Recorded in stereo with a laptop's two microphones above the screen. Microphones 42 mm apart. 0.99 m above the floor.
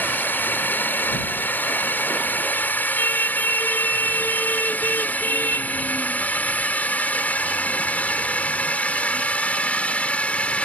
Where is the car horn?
50° left (ahead or behind).